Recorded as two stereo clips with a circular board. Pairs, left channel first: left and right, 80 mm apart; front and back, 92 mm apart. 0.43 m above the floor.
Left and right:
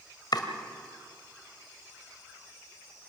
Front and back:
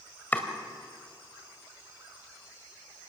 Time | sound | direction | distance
0.3 | chopping | 70° left | 1.9 m